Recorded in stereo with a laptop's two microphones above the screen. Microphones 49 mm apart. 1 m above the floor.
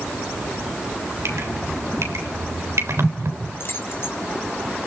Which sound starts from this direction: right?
Dripping, at 1.2 s.